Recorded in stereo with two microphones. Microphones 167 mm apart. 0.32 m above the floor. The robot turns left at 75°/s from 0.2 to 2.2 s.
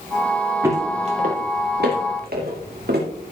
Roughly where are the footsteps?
Centre.